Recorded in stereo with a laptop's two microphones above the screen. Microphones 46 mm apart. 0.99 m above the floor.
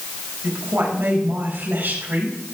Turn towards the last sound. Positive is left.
turn(degrees=-55)  # may be behind; listen again after turning